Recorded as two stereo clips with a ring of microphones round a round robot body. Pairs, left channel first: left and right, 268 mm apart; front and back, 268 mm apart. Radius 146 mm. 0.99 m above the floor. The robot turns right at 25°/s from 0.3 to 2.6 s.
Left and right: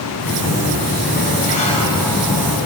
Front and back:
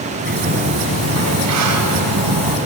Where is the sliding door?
125° left, 5 m; by 2.6 s 175° right, 5 m.